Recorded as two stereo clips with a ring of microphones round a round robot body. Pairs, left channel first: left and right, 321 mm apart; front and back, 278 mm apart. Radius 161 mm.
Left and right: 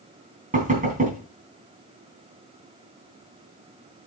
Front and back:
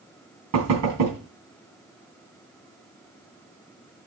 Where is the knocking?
155° right, 3 m.